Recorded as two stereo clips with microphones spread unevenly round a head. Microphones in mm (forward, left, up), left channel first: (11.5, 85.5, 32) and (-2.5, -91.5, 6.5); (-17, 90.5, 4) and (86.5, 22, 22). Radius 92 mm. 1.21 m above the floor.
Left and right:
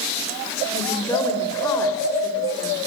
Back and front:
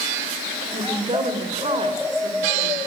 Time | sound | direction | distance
0.7 | a woman speaking | 10° left | 4.5 m